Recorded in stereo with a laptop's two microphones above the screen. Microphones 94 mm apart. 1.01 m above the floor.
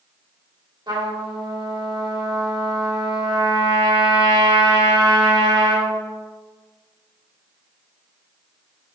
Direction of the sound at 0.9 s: 45° right (ahead or behind).